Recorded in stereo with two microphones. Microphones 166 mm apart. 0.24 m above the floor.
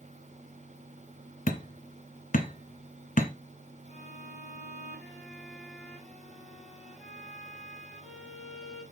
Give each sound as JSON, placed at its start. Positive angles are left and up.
{"t": 1.5, "sound": "hammering", "side_deg": 55, "distance_m": 1.1}
{"t": 3.9, "sound": "a violin", "side_deg": 5, "distance_m": 5.5}